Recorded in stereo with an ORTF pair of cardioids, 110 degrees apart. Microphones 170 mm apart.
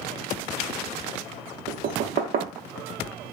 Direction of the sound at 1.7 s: 65° right.